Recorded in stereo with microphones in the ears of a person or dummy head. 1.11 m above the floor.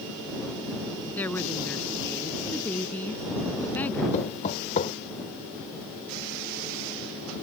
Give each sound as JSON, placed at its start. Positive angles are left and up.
{"t": 1.2, "sound": "a woman speaking", "side_deg": 15}
{"t": 4.1, "sound": "knocking", "side_deg": 45}